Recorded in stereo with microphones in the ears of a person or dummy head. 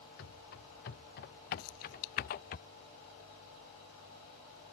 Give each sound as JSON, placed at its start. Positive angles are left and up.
{"t": 0.2, "sound": "running footsteps", "side_deg": 60}
{"t": 1.6, "sound": "keys jangling", "side_deg": 85}